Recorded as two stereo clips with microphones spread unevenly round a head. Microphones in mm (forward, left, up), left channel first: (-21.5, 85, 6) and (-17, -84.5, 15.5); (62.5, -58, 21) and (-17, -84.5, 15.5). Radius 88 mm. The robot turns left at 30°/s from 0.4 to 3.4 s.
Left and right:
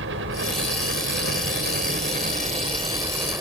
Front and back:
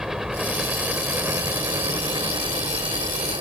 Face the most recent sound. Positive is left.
turn(degrees=-165)